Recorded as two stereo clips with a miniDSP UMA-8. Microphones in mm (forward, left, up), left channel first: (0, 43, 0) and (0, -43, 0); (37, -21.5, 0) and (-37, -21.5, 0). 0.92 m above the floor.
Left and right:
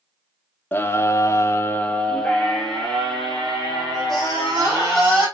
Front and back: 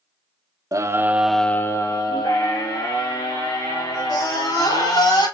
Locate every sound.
0.7 s a scream: 150° left, 1.2 m; by 5.2 s straight ahead, 6 m